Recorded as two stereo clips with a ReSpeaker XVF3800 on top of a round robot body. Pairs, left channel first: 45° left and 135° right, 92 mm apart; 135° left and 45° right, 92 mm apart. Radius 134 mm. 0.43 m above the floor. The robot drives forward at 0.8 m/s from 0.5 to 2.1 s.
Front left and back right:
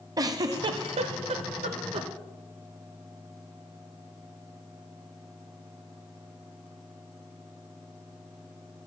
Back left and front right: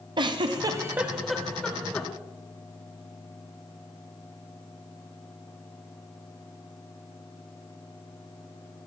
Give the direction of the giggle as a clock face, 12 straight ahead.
3 o'clock.